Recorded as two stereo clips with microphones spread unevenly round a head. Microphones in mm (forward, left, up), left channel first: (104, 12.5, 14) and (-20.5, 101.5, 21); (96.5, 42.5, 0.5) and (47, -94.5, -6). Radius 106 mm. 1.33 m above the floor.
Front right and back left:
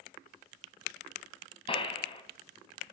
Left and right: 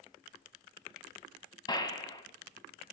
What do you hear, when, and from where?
1.7 s a gunshot: 15° left, 2 m